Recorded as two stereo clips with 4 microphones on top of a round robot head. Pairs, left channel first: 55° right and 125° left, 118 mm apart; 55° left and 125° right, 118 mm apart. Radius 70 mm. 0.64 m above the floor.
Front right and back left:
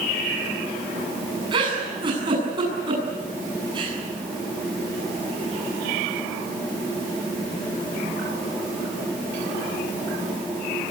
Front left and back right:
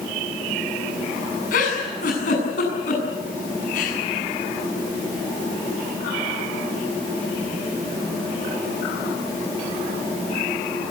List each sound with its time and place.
1.5 s a giggle: 70° left, 7.5 m